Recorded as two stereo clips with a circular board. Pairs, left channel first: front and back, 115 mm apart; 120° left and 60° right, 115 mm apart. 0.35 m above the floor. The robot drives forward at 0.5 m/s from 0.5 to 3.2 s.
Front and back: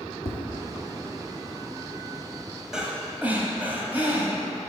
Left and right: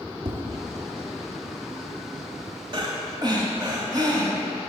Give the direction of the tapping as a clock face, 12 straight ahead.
1 o'clock.